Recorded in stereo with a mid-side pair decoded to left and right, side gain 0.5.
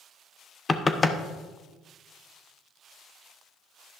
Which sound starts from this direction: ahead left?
Knocking, at 0.7 s.